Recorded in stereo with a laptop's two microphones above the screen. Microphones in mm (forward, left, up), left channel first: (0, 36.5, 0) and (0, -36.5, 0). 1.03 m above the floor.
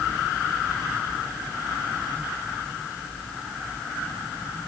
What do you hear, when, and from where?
Only background noise.